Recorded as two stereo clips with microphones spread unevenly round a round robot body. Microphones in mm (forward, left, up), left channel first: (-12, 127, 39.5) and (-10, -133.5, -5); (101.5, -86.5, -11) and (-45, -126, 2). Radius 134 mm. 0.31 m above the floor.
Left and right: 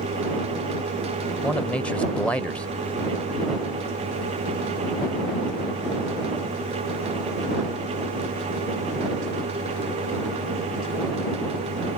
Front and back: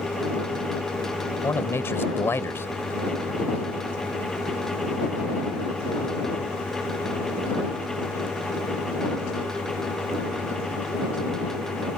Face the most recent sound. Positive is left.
turn(degrees=-15)